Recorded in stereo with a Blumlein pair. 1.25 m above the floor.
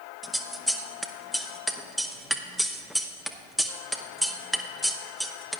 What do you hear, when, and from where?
0.2 s scissors: straight ahead, 0.6 m